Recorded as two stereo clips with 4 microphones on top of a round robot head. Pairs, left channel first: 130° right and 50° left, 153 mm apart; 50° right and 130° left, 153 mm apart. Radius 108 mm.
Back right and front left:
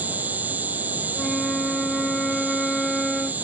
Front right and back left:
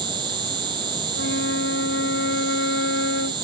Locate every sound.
0.0 s an insect: 115° left
1.1 s a flute: 40° right